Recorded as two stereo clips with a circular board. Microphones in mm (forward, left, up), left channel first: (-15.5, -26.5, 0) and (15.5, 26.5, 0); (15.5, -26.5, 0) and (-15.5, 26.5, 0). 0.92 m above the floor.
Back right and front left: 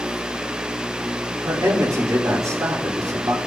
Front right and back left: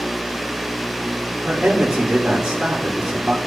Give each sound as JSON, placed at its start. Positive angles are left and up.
{"t": 1.4, "sound": "a man speaking", "azimuth_deg": 40, "distance_m": 3.5}